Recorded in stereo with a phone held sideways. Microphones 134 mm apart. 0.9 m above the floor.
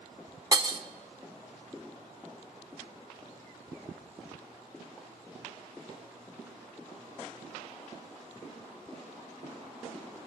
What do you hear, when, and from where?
0.5 s breaking glass: 30° right (ahead or behind), 0.6 m